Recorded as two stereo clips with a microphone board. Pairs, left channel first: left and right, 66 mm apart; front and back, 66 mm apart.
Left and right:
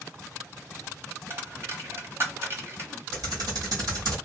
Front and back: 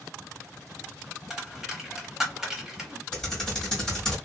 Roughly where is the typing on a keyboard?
Right.